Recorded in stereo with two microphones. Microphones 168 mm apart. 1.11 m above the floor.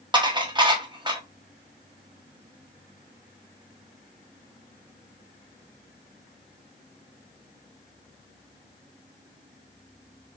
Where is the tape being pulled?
I don't hear tape being pulled.